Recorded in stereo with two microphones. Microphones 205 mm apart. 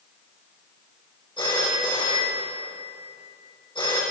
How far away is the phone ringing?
About 4.5 m.